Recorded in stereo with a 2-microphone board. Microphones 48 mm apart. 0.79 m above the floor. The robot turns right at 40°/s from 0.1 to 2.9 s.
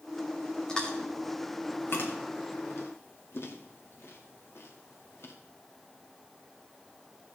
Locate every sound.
0.7 s chewing: 15° left (ahead or behind), 1.8 m; by 5.3 s 60° left (ahead or behind), 1.8 m